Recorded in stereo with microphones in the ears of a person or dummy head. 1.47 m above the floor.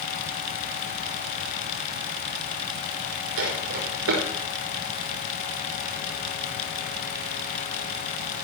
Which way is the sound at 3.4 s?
70° right (ahead or behind).